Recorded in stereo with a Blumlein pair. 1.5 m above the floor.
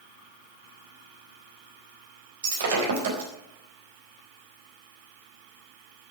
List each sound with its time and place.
2.4 s breaking glass: 60° right, 4 m